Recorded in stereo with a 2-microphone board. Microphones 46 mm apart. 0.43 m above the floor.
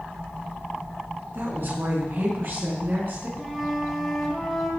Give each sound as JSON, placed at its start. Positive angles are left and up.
{"t": 1.3, "sound": "a woman speaking", "side_deg": -55, "distance_m": 5.0}
{"t": 3.4, "sound": "a flute", "side_deg": 5, "distance_m": 3.0}